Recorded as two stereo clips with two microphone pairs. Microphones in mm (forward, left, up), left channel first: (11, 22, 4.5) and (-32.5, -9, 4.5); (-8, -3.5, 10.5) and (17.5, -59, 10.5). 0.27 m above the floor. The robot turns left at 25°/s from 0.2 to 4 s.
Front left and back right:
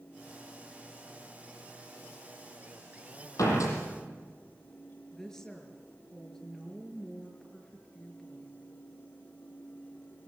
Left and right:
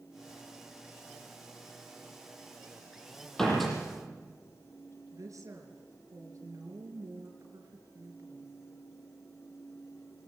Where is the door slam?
30° left, 8.5 m; by 3.8 s 20° left, 8.5 m.